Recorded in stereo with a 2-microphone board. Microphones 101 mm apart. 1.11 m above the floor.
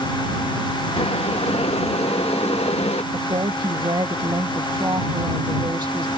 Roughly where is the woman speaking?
Right.